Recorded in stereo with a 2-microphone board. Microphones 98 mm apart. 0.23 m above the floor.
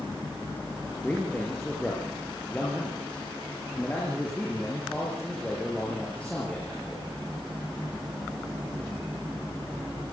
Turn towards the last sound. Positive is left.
turn(degrees=15)  # may be behind; listen again after turning